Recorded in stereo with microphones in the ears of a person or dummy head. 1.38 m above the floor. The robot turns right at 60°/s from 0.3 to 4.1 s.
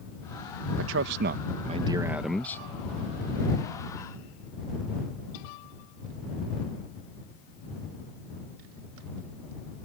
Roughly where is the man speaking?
Right.